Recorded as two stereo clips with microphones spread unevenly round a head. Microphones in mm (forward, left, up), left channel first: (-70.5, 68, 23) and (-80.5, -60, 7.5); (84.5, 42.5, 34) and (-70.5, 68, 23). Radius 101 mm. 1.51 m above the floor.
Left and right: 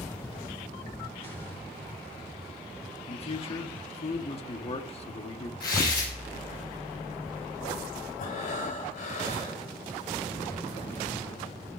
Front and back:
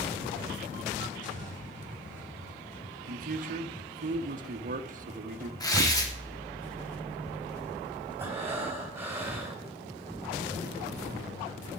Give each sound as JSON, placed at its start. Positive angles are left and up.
{"t": 1.2, "sound": "an explosion", "azimuth_deg": 20, "distance_m": 2.5}
{"t": 3.1, "sound": "a man speaking", "azimuth_deg": 130, "distance_m": 1.1}
{"t": 5.6, "sound": "tearing paper", "azimuth_deg": 55, "distance_m": 2.0}
{"t": 8.2, "sound": "breathing", "azimuth_deg": 95, "distance_m": 3.5}